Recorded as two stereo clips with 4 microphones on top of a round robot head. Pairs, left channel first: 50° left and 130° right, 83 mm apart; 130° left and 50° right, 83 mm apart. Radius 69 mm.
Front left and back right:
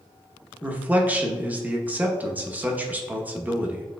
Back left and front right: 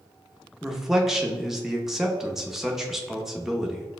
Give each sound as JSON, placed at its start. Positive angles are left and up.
{"t": 0.6, "sound": "a man speaking", "azimuth_deg": -125, "distance_m": 0.9}